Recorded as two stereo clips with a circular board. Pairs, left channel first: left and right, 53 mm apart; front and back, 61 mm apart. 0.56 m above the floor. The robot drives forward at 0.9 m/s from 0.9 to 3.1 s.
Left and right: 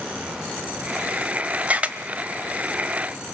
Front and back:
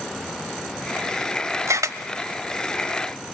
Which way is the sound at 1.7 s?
150° right.